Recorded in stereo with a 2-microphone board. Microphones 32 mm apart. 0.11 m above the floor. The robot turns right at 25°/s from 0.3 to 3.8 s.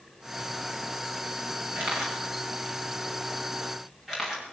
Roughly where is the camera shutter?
Right.